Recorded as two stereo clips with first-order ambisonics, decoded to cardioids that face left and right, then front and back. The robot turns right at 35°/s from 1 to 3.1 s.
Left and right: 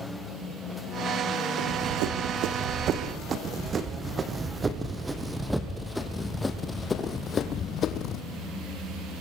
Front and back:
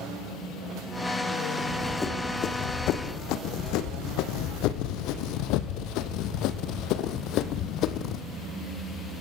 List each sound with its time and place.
1.6 s running footsteps: 95° right, 3.5 m; by 8.2 s 40° left, 2.5 m